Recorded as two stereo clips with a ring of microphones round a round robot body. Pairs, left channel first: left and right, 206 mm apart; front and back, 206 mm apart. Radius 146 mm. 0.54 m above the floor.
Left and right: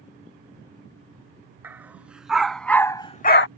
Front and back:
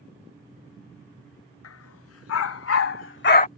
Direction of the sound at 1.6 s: 10° right.